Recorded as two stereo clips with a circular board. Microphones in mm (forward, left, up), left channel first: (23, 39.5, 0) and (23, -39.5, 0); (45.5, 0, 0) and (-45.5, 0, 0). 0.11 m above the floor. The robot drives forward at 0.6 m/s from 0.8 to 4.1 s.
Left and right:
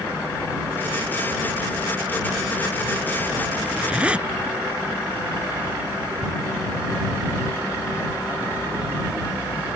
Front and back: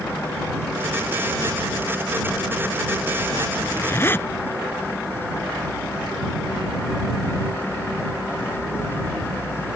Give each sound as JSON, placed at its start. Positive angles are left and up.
{"t": 3.6, "sound": "a zipper", "azimuth_deg": -20}